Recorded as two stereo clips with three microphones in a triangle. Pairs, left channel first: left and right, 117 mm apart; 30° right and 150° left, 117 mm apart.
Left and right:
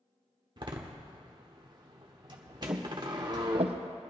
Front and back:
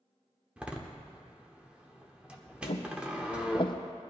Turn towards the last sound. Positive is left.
turn(degrees=-75)